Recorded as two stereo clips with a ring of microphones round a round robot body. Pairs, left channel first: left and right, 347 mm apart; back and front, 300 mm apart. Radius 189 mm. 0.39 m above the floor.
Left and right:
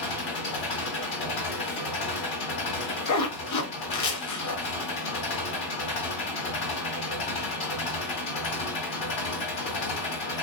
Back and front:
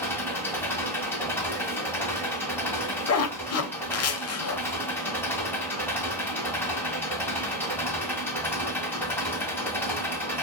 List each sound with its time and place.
0.0 s an engine running: 95° left, 1.6 m
3.1 s a zipper: 135° left, 0.7 m